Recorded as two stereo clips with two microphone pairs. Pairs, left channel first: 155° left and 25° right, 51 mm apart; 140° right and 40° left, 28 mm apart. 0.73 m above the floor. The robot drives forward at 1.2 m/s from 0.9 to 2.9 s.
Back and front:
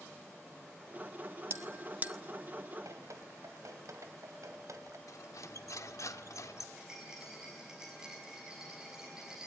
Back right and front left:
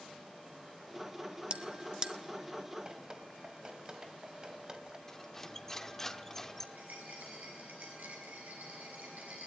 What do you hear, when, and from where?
1.5 s a bell: straight ahead, 1.3 m; by 2.1 s 10° right, 0.7 m
2.9 s dripping: 20° right, 2 m; by 5.0 s 25° right, 2 m
5.1 s cutlery clinking: 145° left, 1.0 m
6.8 s a rattle: 55° left, 6.5 m